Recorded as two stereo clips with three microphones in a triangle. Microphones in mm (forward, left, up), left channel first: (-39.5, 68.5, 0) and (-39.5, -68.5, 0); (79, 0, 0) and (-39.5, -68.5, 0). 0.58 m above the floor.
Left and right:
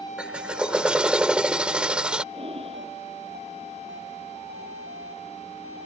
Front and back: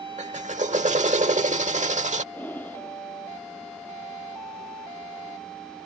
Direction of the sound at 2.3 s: 45° right.